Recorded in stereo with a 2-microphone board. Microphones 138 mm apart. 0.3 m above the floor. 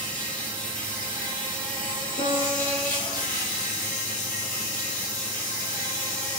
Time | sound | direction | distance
0.0 | an insect | 10° left (ahead or behind) | 7 m
2.2 | a piano | 50° left (ahead or behind) | 6.5 m